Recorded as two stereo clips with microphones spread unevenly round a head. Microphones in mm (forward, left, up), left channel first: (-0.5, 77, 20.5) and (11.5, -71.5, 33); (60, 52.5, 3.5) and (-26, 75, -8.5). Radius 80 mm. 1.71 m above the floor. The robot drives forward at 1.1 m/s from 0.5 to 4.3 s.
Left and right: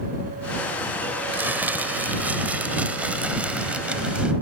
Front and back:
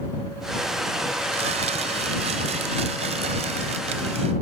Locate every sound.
1.3 s crumpling: 165° right; by 4.3 s 170° right